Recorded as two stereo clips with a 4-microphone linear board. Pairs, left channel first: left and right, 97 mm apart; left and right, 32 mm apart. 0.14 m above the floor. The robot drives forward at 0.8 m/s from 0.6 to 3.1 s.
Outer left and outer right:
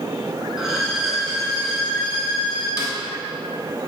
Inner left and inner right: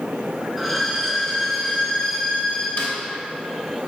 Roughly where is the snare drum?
Left.